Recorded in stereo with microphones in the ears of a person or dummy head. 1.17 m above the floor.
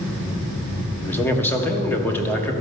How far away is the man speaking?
About 1.2 m.